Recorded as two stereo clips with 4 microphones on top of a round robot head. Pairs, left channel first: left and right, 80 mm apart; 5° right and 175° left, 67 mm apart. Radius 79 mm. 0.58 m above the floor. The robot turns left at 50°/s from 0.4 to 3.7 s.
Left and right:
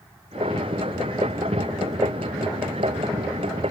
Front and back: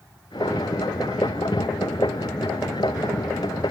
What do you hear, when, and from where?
Only background noise.